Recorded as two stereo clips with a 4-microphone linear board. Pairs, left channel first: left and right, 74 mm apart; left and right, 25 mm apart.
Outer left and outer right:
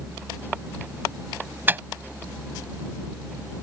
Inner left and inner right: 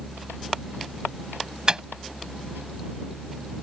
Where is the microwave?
30° right (ahead or behind).